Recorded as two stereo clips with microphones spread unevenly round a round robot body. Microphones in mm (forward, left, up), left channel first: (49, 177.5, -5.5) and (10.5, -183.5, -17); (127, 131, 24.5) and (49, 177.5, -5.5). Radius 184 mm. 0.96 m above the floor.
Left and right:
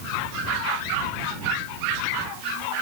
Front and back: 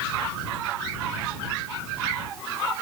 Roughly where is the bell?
No bell in this recording.